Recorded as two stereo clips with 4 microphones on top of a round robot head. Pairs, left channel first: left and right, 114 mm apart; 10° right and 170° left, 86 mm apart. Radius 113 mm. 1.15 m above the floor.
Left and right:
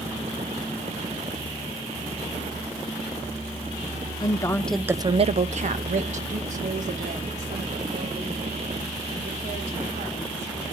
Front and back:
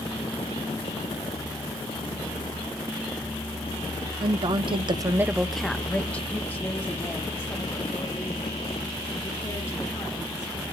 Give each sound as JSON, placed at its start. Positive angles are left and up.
{"t": 4.2, "sound": "a woman speaking", "azimuth_deg": 145, "distance_m": 1.3}